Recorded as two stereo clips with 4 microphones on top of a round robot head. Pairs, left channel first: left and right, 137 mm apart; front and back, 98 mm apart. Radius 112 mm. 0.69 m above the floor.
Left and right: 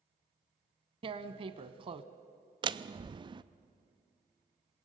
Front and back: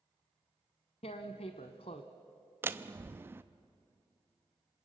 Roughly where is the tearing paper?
Ahead right.